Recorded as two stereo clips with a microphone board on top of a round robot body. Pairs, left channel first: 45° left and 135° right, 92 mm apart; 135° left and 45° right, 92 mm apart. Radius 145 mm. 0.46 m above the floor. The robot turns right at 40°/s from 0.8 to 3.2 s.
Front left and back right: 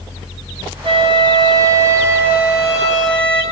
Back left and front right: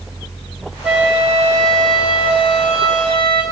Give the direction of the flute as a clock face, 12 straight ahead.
4 o'clock.